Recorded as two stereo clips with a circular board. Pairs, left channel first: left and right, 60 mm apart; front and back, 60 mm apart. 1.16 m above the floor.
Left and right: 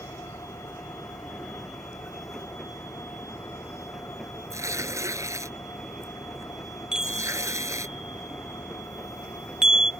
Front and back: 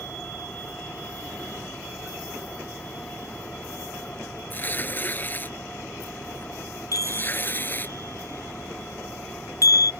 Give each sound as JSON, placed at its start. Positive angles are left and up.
{"t": 0.0, "sound": "an engine running", "azimuth_deg": 70}
{"t": 4.5, "sound": "tearing paper", "azimuth_deg": -60}
{"t": 6.9, "sound": "a chime", "azimuth_deg": -10}